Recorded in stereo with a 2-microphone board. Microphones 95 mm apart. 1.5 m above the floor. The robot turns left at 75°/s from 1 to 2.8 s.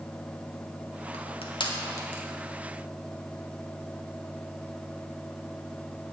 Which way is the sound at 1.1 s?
80° left.